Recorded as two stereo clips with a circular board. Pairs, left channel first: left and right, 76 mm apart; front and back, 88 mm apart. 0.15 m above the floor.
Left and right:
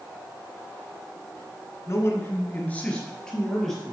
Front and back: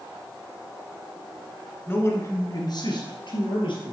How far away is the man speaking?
About 1.6 m.